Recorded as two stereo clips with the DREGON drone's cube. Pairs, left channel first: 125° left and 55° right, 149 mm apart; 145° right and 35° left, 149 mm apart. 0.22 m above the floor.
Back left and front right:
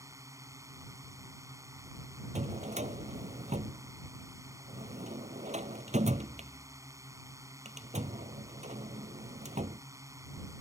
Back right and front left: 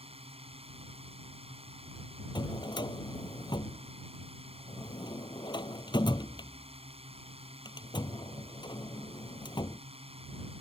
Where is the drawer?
90° right.